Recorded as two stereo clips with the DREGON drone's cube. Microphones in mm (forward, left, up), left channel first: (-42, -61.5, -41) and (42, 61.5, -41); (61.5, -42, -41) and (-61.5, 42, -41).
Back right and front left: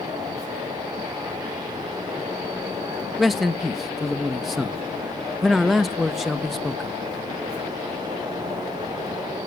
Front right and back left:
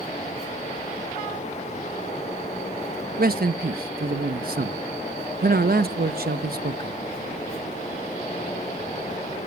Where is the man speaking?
145° left, 1.0 m.